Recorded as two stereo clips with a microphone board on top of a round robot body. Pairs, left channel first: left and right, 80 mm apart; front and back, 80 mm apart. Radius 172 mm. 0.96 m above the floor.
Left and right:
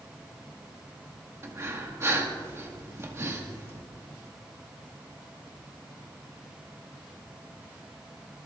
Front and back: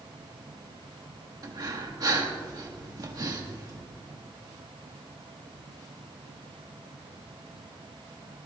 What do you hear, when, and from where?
1.4 s breathing: 145° right, 1.8 m